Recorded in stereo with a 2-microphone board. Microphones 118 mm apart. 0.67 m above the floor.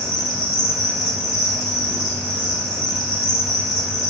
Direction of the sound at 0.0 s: 30° left (ahead or behind).